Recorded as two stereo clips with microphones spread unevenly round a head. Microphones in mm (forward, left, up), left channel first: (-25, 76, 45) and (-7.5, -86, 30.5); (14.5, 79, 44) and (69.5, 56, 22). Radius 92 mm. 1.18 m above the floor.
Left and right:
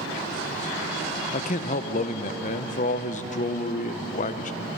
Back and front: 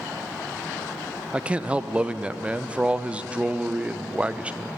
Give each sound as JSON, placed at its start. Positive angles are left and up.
{"t": 1.3, "sound": "a man speaking", "azimuth_deg": 45, "distance_m": 0.6}